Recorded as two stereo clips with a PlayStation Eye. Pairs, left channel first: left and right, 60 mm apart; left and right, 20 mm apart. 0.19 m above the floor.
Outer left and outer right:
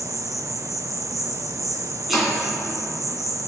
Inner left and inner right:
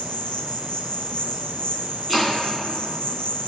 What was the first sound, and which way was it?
An insect, 55° left (ahead or behind).